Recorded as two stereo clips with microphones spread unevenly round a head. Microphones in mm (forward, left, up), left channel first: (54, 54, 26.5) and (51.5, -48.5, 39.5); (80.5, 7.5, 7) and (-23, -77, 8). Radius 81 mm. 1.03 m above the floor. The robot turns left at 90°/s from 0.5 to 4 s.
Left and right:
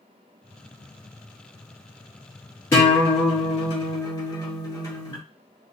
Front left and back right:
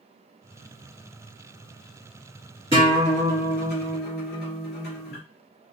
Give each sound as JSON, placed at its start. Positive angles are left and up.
{"t": 2.7, "sound": "a guitar", "azimuth_deg": 160, "distance_m": 1.9}